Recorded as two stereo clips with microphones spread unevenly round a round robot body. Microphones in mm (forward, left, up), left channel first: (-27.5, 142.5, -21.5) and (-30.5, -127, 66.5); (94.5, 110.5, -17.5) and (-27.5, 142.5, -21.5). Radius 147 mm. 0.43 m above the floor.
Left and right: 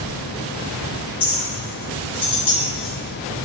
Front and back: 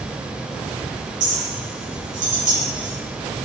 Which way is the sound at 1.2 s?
160° left.